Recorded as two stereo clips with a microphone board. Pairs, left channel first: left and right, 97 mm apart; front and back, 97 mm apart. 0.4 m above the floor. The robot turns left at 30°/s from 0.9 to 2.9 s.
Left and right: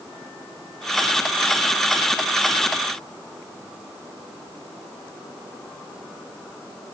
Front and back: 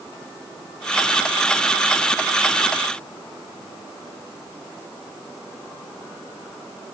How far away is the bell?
No bell in this recording.